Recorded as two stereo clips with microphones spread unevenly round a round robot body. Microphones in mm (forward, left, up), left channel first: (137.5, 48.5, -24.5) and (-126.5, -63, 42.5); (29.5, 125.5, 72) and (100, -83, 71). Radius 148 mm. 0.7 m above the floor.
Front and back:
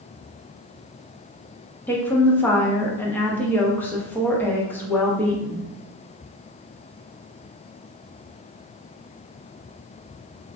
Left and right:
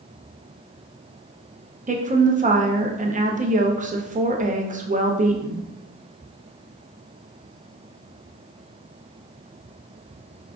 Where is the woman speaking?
40° right, 0.8 m.